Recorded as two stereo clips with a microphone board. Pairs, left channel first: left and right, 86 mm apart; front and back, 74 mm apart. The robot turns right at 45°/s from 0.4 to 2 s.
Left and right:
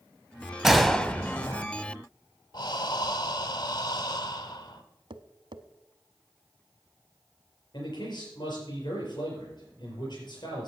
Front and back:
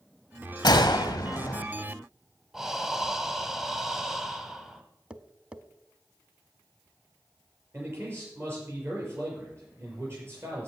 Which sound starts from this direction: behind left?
A man speaking, at 7.7 s.